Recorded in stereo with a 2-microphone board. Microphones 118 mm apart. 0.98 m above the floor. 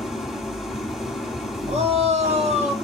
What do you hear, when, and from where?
0.0 s an engine running: centre (ahead or behind), 2 m
1.7 s a shout: 65° right (ahead or behind), 2 m